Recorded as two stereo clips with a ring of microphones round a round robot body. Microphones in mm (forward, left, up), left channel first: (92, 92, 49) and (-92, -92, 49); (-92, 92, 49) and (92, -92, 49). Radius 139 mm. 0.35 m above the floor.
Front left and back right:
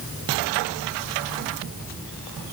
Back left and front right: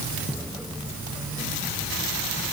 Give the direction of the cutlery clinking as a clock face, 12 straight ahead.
I don't hear cutlery clinking.